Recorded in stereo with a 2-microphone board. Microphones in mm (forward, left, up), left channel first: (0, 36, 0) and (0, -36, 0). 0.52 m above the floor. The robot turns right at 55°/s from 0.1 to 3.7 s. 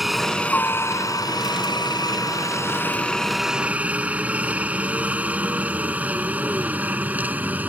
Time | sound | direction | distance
0.0 | a helicopter | centre (ahead or behind) | ?